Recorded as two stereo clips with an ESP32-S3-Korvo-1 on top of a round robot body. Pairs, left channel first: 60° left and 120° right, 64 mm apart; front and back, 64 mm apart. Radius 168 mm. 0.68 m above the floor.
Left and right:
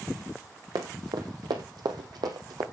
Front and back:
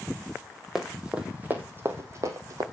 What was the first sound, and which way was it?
Running footsteps, 95° right.